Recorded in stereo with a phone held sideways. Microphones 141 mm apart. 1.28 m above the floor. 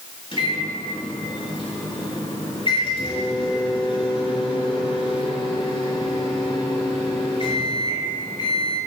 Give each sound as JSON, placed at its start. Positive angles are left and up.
{"t": 0.3, "sound": "a microwave", "side_deg": 40, "distance_m": 6.0}